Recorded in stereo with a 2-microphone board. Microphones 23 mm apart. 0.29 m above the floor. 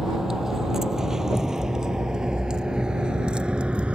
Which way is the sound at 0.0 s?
25° right (ahead or behind).